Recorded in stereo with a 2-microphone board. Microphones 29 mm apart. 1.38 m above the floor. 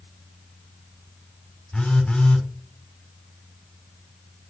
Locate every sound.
1.7 s a phone buzzing: 35° left (ahead or behind), 5.5 m